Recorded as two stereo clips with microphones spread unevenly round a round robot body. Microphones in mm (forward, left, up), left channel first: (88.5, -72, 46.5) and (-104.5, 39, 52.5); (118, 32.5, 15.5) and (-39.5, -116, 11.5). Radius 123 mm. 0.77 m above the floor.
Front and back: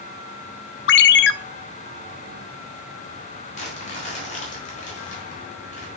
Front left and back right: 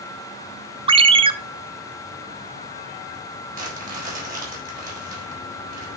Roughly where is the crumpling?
Right.